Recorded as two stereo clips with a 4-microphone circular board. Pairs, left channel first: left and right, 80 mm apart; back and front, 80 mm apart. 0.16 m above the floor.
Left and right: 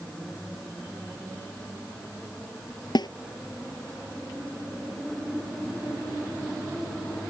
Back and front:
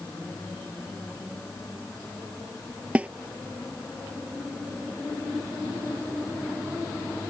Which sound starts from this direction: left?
A snare drum, at 3.0 s.